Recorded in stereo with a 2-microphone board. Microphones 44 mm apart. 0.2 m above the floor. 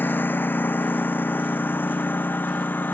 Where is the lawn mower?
45° left (ahead or behind).